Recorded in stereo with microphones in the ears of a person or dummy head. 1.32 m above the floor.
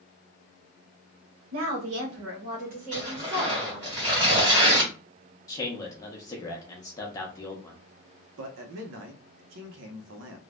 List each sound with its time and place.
1.5 s a woman speaking: 75° right (ahead or behind), 1.0 m; by 3.9 s 15° right (ahead or behind), 1.4 m
2.9 s tearing paper: 25° right (ahead or behind), 1.4 m
5.5 s a man speaking: 15° left (ahead or behind), 0.8 m
8.4 s a man speaking: 65° right (ahead or behind), 0.7 m